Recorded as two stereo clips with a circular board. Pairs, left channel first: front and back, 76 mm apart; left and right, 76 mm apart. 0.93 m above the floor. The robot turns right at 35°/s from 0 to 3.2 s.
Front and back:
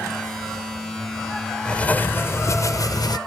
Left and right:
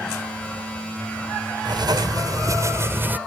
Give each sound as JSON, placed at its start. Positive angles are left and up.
{"t": 1.6, "sound": "writing", "azimuth_deg": -75}